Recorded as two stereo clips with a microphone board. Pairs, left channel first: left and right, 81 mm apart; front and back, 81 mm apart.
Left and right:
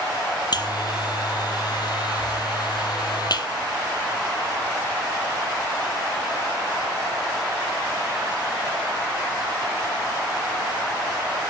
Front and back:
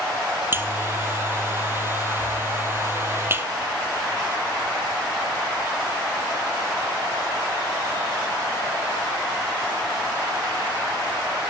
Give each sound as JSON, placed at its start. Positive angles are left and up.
{"t": 0.5, "sound": "a buzzer", "azimuth_deg": 120, "distance_m": 1.3}